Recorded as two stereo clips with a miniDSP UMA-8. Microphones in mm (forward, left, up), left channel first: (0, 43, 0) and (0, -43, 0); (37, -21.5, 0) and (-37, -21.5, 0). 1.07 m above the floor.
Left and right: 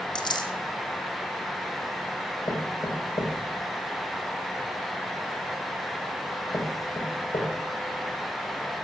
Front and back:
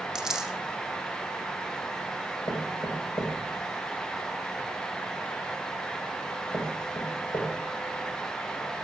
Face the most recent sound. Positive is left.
turn(degrees=55)